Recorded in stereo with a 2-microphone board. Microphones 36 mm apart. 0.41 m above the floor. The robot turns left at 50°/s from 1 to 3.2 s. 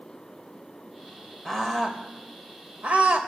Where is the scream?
10° left (ahead or behind), 2 m; by 3.2 s 50° right (ahead or behind), 2 m.